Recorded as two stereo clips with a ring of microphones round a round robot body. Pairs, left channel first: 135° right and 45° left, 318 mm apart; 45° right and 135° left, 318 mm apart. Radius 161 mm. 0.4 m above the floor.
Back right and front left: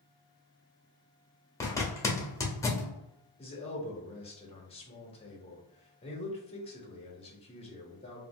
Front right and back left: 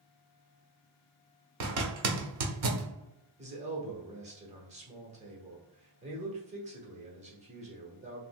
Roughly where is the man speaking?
Behind.